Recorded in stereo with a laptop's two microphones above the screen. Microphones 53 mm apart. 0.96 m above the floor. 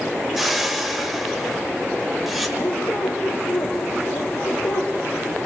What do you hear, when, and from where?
0.4 s a whoosh: centre (ahead or behind), 1.7 m
2.6 s a squeak: 80° left, 4 m